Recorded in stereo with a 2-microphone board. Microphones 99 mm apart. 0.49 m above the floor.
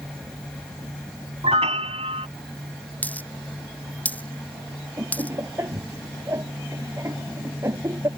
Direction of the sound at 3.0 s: 15° left (ahead or behind).